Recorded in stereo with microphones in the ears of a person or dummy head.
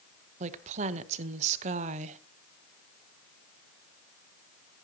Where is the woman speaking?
40° right (ahead or behind), 0.9 m.